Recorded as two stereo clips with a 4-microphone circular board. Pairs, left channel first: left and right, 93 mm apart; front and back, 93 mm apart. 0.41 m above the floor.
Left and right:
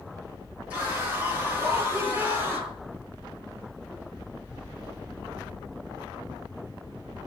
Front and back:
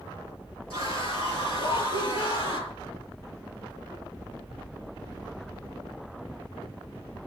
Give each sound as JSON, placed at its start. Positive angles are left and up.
{"t": 0.7, "sound": "a scream", "azimuth_deg": -15, "distance_m": 7.5}